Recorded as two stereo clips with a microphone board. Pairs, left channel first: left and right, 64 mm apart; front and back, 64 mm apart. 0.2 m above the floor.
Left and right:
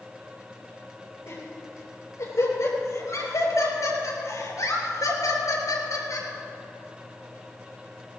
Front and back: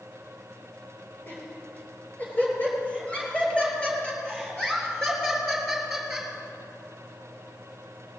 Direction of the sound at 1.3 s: 55° left.